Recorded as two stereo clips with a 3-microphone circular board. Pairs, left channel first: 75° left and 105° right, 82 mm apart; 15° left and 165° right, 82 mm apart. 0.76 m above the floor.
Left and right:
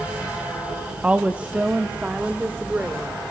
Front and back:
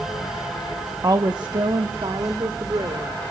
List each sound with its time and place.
1.0 s a woman speaking: 170° right, 0.7 m; by 3.1 s 175° right, 2.5 m